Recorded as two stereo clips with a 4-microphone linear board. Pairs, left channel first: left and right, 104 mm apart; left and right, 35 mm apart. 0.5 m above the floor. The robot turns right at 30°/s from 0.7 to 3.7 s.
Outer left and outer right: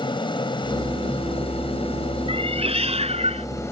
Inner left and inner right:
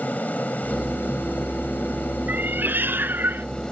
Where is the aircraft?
60° left; by 3.7 s 150° left.